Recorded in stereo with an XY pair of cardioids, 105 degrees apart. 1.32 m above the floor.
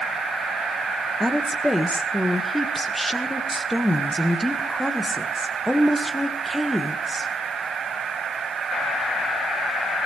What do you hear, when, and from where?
1.2 s a woman speaking: straight ahead, 1.7 m